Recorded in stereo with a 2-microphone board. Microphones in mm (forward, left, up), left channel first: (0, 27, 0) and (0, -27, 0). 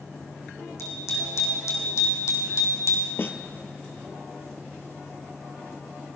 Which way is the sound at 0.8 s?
70° left (ahead or behind).